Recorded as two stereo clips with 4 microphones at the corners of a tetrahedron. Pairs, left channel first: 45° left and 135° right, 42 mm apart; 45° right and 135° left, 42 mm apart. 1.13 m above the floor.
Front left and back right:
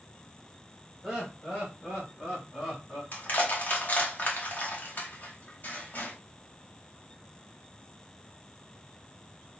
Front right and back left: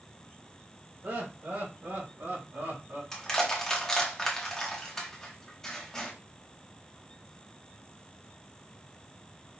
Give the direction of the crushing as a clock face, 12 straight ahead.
11 o'clock.